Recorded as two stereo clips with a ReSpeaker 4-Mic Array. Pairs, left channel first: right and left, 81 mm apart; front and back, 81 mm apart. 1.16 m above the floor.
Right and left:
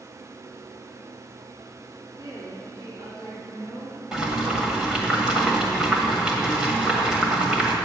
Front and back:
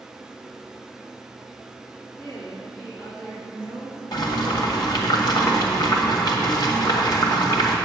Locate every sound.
2.2 s a woman speaking: 50° left, 3.5 m
4.1 s boiling: 10° left, 1.6 m